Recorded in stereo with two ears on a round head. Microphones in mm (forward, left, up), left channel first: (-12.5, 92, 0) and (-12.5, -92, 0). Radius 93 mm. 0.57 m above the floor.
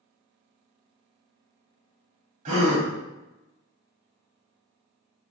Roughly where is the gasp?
Right.